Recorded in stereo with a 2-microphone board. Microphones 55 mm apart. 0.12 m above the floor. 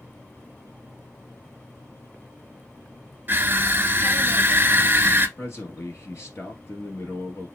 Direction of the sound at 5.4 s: 50° left (ahead or behind).